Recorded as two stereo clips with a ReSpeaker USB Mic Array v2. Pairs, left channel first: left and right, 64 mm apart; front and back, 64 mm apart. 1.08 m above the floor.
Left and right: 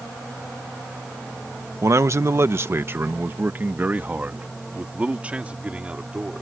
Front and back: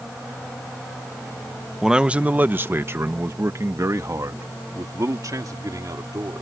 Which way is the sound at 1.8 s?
100° right.